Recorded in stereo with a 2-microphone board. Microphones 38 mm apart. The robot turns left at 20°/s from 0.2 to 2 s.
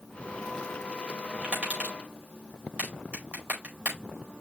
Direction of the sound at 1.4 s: 25° right (ahead or behind).